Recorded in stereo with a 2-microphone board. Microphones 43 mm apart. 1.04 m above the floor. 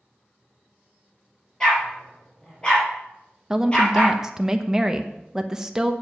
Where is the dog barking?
15° left (ahead or behind), 4.5 m; by 4.2 s 25° left (ahead or behind), 5.5 m.